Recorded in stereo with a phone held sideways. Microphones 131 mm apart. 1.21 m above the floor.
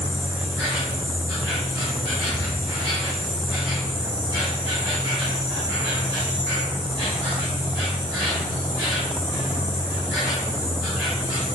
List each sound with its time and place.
0.0 s an insect: 35° right (ahead or behind), 1.7 m